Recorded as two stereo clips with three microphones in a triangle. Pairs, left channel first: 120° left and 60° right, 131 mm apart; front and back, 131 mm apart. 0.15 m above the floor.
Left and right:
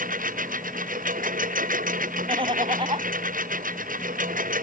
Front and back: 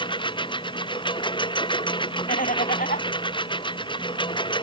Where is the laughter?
5° right.